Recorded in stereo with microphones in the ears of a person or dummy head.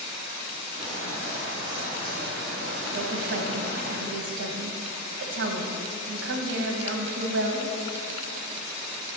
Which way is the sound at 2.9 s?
70° right (ahead or behind).